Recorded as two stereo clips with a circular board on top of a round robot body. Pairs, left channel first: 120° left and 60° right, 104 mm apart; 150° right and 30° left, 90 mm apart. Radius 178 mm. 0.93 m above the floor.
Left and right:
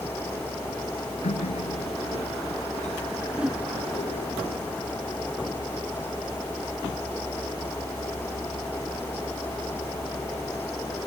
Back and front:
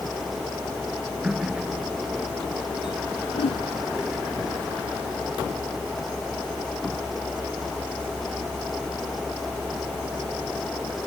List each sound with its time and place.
1.2 s a running tap: 115° left
3.3 s a whoosh: 140° right